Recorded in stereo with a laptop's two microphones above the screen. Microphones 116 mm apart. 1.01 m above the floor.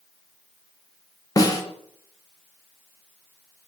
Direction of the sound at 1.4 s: 30° left (ahead or behind).